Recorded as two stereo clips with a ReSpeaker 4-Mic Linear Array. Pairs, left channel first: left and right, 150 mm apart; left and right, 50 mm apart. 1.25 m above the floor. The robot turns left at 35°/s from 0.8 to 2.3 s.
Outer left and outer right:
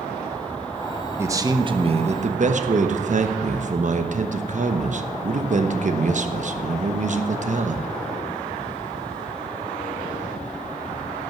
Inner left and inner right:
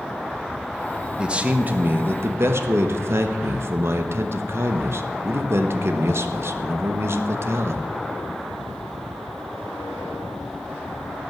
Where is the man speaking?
15° right, 1.1 m; by 7.8 s 55° right, 1.1 m.